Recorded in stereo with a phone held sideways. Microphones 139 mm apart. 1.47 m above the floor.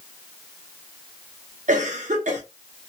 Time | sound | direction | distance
1.7 | a cough | 60° right (ahead or behind) | 0.6 m